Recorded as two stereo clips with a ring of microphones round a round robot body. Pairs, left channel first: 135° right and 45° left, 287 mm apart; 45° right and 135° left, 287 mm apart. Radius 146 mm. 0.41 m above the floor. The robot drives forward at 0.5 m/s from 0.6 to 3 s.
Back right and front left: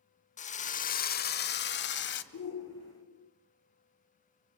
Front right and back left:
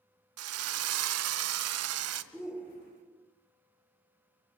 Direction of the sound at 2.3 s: 135° right.